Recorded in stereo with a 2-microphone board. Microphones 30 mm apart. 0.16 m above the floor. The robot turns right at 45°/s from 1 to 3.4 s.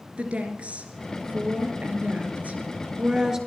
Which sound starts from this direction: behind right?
A woman speaking, at 0.2 s.